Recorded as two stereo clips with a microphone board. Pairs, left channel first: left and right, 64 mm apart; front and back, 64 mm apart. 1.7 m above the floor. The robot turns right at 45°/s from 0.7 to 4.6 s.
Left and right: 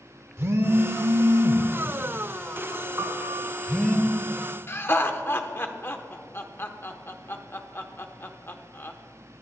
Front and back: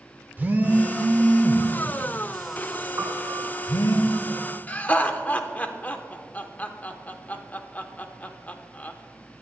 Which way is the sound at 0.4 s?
125° right.